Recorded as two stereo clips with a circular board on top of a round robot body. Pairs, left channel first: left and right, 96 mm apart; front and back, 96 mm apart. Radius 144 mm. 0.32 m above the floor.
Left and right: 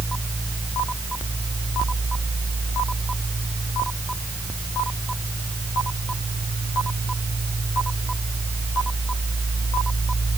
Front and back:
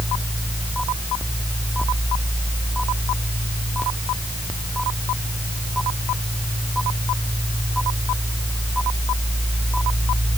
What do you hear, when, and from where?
Only background noise.